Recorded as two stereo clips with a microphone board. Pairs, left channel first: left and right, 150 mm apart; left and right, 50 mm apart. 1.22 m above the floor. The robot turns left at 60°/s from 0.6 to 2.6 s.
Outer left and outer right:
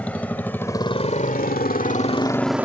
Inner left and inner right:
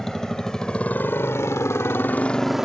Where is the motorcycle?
10° left (ahead or behind); by 2.6 s 10° right (ahead or behind).